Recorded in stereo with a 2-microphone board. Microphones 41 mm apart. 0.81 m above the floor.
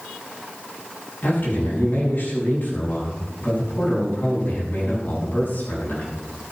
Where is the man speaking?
55° left (ahead or behind), 8 m.